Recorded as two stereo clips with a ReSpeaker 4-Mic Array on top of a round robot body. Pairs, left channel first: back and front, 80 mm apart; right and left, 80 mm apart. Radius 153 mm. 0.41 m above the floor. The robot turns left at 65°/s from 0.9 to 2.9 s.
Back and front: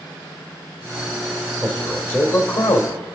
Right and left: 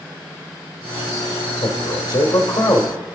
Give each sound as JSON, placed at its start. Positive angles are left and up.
{"t": 1.6, "sound": "a man speaking", "azimuth_deg": -85, "distance_m": 2.5}